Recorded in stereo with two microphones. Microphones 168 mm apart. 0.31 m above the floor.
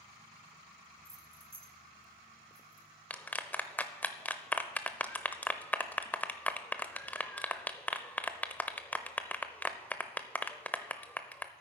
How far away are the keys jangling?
About 0.7 m.